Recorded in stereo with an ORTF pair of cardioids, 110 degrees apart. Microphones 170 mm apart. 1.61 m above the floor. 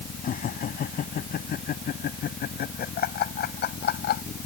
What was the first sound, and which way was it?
Laughter, 55° left.